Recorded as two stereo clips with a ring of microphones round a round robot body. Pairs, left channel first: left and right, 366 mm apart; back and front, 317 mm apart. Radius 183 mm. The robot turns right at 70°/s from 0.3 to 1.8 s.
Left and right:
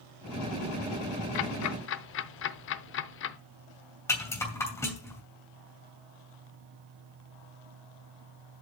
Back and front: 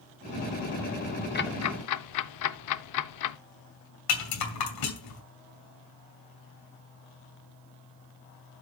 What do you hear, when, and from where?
1.4 s ticking: 115° left, 0.6 m; by 3.4 s 150° left, 0.6 m
4.1 s a rattle: 175° left, 2.5 m